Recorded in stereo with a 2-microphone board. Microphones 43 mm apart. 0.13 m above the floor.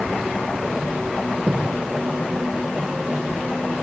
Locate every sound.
1.4 s a thud: 20° right (ahead or behind), 6.5 m